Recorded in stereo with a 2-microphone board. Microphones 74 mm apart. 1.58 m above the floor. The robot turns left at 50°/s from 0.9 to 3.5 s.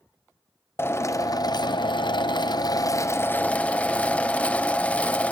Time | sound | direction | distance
0.8 | a drill | 145° left | 0.7 m